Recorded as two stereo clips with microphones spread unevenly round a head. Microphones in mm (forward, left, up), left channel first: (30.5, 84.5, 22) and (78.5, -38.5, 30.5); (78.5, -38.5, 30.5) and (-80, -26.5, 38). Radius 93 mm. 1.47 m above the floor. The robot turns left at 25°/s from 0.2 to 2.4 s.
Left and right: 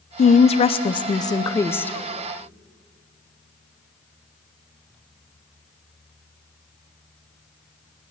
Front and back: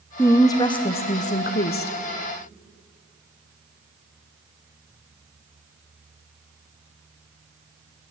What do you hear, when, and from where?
0.2 s a woman speaking: 75° left, 0.5 m; by 1.9 s 30° left, 0.5 m